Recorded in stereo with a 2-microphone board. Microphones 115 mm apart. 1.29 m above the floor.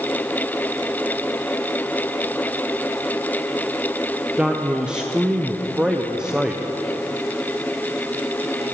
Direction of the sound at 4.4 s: 10° right (ahead or behind).